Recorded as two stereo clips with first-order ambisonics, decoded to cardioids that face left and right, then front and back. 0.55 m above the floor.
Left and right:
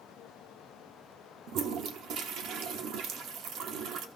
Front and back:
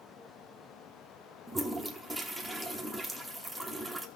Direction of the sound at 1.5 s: 100° right.